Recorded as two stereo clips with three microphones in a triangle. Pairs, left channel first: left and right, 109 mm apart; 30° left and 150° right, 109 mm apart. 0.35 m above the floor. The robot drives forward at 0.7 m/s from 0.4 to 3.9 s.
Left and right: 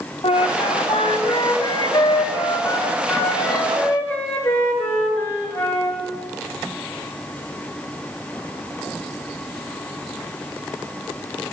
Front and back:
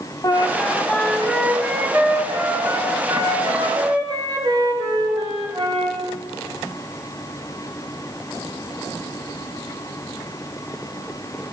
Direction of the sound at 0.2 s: 80° left.